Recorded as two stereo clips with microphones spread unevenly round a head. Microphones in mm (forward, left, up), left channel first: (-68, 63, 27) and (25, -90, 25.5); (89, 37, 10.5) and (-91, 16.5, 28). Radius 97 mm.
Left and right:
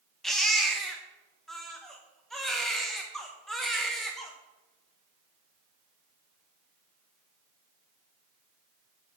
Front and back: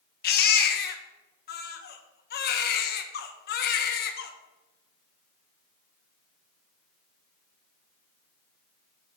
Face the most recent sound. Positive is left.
turn(degrees=35)